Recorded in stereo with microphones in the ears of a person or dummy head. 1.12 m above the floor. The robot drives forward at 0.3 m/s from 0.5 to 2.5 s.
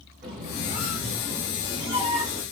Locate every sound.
0.2 s a squeak: 35° right (ahead or behind), 1.2 m; by 2.4 s 25° right (ahead or behind), 1.6 m